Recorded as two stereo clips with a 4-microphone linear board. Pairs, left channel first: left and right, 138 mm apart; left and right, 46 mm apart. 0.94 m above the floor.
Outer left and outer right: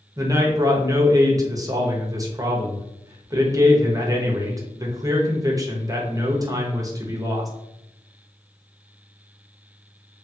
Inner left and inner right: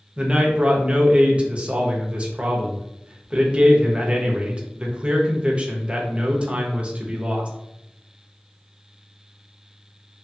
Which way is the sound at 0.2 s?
25° right (ahead or behind).